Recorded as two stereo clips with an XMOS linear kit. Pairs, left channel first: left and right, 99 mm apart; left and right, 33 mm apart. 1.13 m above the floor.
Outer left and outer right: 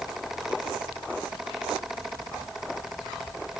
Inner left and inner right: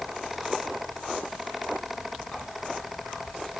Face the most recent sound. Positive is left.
No sound to turn to.